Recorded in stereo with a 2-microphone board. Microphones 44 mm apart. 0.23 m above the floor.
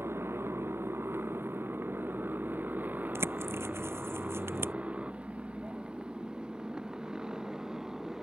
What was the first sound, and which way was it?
A motorcycle, 75° right (ahead or behind).